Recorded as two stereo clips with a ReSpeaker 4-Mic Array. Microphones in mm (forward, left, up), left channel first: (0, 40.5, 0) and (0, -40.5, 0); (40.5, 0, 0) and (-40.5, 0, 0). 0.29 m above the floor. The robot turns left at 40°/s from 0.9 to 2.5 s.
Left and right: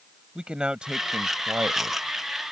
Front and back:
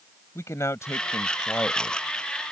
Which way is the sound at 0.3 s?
20° right.